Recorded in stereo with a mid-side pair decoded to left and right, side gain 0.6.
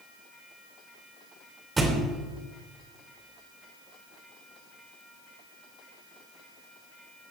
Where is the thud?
20° right, 3 m.